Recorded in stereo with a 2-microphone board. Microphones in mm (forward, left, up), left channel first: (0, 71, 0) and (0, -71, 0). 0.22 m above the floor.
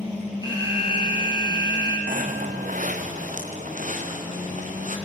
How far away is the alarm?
About 5 m.